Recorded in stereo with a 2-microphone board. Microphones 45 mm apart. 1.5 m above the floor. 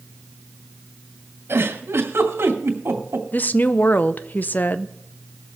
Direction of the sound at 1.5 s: 70° right (ahead or behind).